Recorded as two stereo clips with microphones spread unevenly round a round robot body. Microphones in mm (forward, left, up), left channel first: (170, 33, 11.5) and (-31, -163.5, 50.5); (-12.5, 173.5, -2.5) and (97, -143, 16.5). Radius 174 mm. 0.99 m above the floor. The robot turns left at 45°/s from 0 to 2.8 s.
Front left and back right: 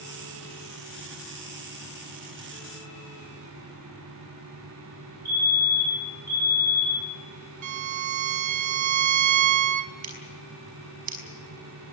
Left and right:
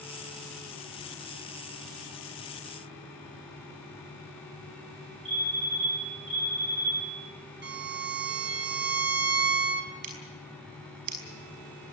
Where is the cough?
No cough in this recording.